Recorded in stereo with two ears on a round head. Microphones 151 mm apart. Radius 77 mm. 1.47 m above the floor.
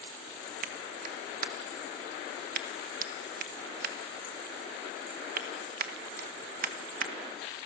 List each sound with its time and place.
0.6 s a clap: 55° right (ahead or behind), 1.6 m